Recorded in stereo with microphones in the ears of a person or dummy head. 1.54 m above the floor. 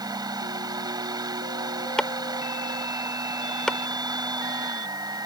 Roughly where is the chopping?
Centre.